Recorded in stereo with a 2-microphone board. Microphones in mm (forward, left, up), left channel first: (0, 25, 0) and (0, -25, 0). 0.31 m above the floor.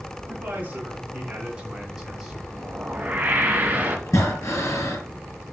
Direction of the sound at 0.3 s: 35° right (ahead or behind).